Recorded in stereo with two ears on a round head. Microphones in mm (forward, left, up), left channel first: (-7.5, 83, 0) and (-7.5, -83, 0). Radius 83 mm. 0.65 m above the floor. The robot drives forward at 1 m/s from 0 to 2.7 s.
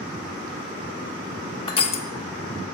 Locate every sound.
1.7 s crushing: 25° left (ahead or behind), 0.6 m; by 2.0 s 35° left (ahead or behind), 0.5 m